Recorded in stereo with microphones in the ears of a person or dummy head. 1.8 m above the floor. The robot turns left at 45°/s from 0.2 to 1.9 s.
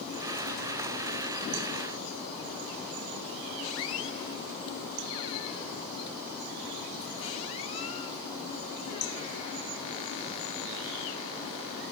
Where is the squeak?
25° left (ahead or behind), 0.7 m.